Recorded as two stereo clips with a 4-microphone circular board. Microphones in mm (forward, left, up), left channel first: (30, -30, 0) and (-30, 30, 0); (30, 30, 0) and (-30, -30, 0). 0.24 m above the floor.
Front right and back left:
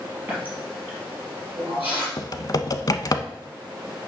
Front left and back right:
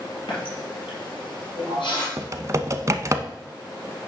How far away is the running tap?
About 4 m.